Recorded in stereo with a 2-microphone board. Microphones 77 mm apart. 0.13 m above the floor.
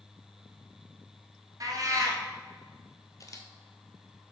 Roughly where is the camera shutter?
Left.